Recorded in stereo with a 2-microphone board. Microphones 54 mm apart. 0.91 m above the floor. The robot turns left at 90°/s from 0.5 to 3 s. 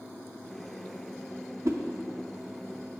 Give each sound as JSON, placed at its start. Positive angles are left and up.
{"t": 1.6, "sound": "a whoosh", "side_deg": -60, "distance_m": 0.7}